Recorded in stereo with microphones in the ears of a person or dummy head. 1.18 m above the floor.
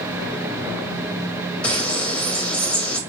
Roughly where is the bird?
Centre.